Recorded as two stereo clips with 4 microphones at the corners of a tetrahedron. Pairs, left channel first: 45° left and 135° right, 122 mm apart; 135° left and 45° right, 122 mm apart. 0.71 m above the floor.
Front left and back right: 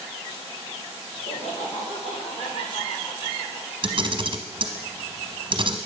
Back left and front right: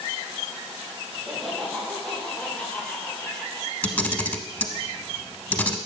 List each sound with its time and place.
1.1 s laughter: 45° left, 3 m; by 3.7 s 80° left, 2.5 m
3.8 s a camera shutter: 155° right, 0.8 m